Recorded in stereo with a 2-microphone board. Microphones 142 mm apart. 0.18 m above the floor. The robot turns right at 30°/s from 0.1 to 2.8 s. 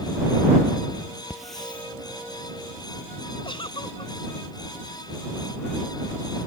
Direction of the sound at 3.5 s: 35° left (ahead or behind).